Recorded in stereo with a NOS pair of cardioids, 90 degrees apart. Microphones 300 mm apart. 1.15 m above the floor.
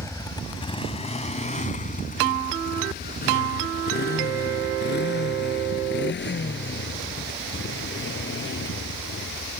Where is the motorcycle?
10° left; by 9.6 s 40° left.